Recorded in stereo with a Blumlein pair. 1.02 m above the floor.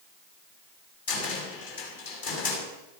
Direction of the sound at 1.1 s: 55° left.